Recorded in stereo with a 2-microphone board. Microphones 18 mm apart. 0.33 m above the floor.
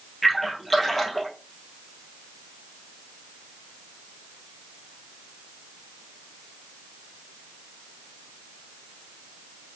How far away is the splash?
About 2.0 m.